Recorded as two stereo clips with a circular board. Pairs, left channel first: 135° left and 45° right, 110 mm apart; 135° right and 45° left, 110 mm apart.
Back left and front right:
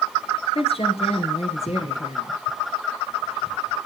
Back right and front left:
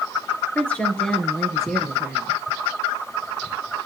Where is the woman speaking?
150° left, 3 m; by 2.4 s 130° left, 3.5 m.